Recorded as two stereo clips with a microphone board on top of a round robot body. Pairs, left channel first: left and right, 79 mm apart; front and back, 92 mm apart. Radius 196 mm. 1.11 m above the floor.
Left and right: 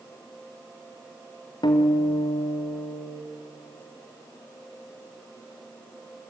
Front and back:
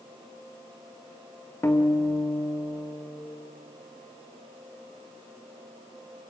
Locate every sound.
1.6 s a guitar: 60° left, 2 m